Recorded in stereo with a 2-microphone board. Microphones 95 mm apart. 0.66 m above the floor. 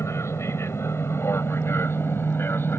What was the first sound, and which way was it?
An aircraft, 30° left (ahead or behind).